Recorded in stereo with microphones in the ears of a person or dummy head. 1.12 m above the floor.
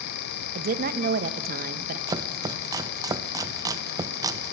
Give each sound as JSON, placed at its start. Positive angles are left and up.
{"t": 0.6, "sound": "a woman speaking", "side_deg": -45, "distance_m": 1.4}
{"t": 2.1, "sound": "chopping", "side_deg": -20, "distance_m": 1.0}